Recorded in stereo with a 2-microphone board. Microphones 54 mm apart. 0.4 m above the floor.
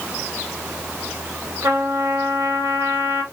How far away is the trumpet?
About 1.0 m.